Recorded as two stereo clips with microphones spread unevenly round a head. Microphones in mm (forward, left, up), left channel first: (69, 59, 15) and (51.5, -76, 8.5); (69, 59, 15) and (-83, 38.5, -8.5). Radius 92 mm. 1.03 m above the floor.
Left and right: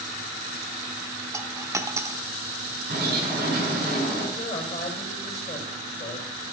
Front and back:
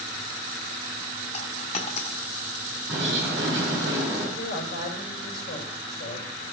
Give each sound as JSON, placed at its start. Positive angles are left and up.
{"t": 1.3, "sound": "a dropped coin", "azimuth_deg": -30, "distance_m": 0.8}
{"t": 2.9, "sound": "a bird", "azimuth_deg": -95, "distance_m": 5.5}
{"t": 4.4, "sound": "a woman speaking", "azimuth_deg": 40, "distance_m": 4.5}